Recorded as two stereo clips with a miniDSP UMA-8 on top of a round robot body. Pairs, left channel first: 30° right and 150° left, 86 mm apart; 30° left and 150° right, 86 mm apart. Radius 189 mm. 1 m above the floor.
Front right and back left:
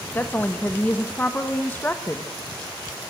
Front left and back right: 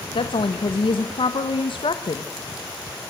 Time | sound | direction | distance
0.1 | a woman speaking | 40° left | 1.7 m